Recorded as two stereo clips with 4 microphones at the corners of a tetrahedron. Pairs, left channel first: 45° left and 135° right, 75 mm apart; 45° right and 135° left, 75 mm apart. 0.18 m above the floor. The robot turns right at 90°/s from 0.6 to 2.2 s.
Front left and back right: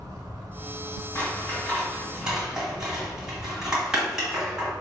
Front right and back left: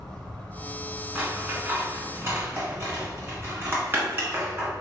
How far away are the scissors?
About 1.4 m.